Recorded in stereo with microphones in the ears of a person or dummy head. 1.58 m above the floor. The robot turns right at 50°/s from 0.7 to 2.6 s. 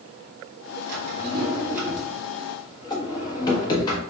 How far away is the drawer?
About 1.4 m.